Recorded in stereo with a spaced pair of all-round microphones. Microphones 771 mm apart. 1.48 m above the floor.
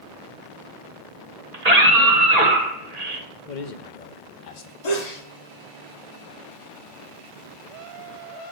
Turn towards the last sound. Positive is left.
turn(degrees=55)  # may be behind; listen again after turning